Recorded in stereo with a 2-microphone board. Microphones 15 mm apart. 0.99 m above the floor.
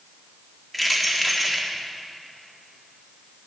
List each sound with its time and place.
0.7 s keys jangling: 10° left (ahead or behind), 1.7 m